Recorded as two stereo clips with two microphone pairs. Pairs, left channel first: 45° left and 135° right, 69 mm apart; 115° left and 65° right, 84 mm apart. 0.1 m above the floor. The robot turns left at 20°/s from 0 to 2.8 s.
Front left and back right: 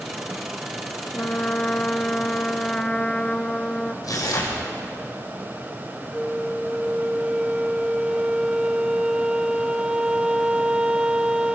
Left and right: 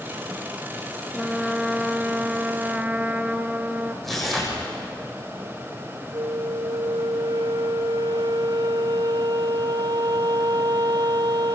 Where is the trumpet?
15° left, 0.7 m; by 3.9 s 15° right, 0.7 m.